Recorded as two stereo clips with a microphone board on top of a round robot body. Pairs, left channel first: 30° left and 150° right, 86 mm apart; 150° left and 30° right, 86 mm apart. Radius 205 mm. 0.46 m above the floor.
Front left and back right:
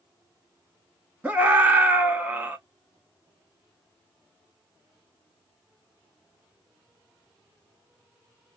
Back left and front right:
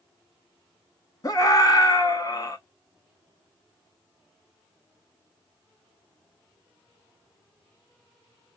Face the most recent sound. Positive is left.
turn(degrees=145)